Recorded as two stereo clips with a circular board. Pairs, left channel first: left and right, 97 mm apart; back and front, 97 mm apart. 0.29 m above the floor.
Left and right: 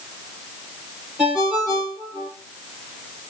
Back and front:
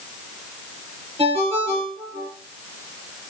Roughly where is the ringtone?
Ahead.